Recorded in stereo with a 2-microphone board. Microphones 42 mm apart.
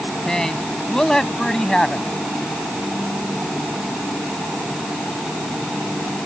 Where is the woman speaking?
15° left (ahead or behind).